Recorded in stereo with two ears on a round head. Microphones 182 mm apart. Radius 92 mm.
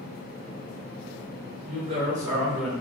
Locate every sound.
1.6 s a woman speaking: 35° right (ahead or behind), 1.2 m; by 2.7 s centre (ahead or behind), 1.3 m